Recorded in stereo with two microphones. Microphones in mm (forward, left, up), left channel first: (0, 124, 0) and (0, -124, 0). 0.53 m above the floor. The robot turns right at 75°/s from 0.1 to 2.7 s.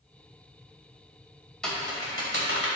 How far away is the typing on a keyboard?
About 2.5 m.